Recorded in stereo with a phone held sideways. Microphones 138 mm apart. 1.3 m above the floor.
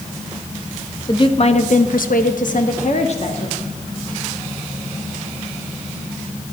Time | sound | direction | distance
1.1 | a woman speaking | 35° left (ahead or behind) | 1.4 m